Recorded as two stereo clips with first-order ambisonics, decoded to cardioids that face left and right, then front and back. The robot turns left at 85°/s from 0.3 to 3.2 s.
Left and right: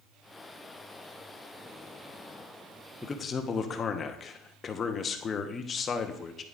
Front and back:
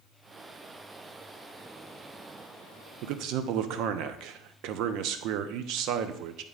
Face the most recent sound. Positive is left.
turn(degrees=155)